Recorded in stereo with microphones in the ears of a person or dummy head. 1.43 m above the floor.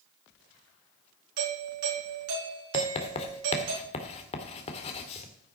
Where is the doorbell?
70° right (ahead or behind), 4 m.